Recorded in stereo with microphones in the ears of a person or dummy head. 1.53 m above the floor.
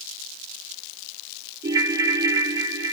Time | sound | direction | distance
1.6 | a ringtone | 15° right (ahead or behind) | 1.3 m